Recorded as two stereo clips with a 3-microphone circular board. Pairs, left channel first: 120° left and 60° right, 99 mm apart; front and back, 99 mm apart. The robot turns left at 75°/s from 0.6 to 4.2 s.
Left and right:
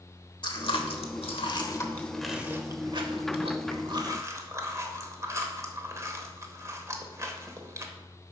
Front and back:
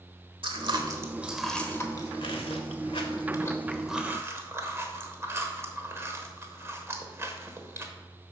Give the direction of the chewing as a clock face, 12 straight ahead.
7 o'clock.